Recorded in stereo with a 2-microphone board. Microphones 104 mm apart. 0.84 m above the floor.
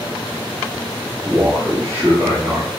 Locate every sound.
1.2 s a man speaking: 25° right (ahead or behind), 1.2 m